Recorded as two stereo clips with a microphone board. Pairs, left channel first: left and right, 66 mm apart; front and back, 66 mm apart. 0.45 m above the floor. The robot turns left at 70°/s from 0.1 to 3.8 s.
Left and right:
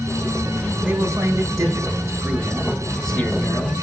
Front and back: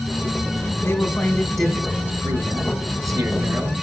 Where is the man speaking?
45° right, 1.7 m; by 3.8 s 115° left, 1.7 m.